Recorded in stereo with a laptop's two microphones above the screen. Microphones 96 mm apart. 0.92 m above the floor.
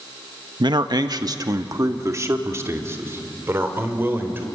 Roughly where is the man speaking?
Right.